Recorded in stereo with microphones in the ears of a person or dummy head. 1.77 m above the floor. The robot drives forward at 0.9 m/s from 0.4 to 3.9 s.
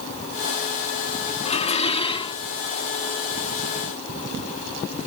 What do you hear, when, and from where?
1.4 s dishes clattering: 35° left (ahead or behind); by 2.4 s 30° left (ahead or behind)